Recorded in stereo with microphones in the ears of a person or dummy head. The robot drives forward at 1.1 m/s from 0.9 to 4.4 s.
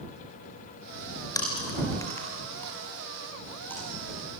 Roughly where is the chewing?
Left.